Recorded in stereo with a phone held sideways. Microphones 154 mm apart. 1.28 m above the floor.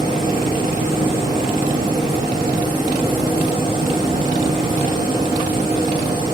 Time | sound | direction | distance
0.0 | a machine running | 30° right (ahead or behind) | 4 m